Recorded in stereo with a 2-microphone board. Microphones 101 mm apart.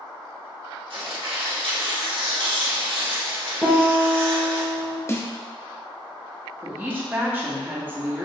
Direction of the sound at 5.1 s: 25° left (ahead or behind).